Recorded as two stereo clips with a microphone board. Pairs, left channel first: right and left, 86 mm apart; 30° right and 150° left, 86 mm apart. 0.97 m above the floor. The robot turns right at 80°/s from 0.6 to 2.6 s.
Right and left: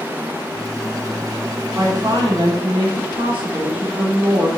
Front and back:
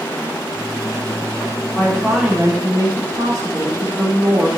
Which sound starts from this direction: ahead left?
A woman speaking, at 1.8 s.